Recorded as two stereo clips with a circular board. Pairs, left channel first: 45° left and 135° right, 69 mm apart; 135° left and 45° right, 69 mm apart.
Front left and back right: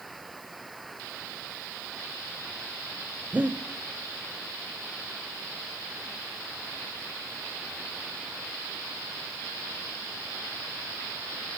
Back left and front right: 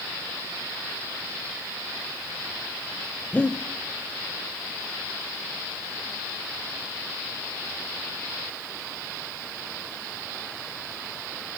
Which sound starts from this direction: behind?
Breathing, at 3.3 s.